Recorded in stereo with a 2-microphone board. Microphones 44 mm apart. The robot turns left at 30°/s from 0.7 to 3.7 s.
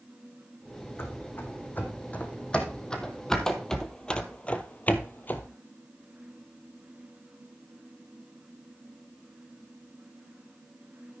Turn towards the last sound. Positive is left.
turn(degrees=45)  # may be behind; listen again after turning